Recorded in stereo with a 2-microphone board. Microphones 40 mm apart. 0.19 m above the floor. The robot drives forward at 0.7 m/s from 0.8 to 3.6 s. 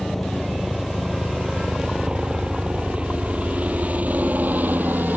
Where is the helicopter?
Centre (ahead or behind); by 5.2 s 55° right (ahead or behind).